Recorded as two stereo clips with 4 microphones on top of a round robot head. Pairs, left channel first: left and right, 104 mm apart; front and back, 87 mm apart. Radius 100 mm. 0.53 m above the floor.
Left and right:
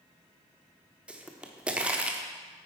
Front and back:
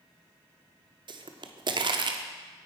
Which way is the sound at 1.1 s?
170° right.